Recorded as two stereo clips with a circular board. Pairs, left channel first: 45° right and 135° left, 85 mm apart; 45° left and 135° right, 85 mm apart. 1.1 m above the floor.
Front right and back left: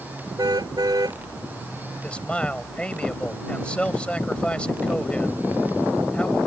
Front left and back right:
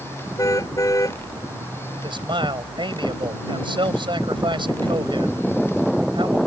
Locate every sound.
0.4 s a car horn: 95° left
2.0 s a man speaking: 120° right